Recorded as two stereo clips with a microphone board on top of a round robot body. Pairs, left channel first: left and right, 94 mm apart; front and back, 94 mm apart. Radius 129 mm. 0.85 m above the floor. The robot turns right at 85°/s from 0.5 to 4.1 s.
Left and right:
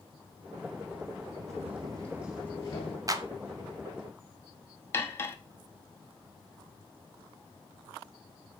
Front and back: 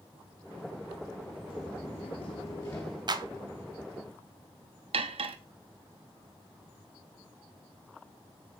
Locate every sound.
1.5 s footsteps: 105° right, 1.2 m; by 3.0 s 90° left, 1.0 m
3.1 s a clap: 140° right, 0.9 m; by 3.3 s 125° right, 0.9 m
4.9 s cutlery clinking: 155° left, 0.6 m